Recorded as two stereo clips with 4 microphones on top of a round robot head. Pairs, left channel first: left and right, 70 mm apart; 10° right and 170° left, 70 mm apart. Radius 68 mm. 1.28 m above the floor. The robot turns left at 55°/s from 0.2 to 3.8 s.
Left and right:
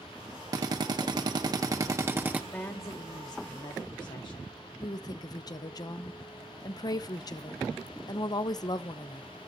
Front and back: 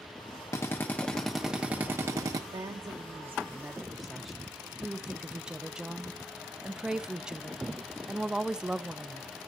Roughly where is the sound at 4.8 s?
Left.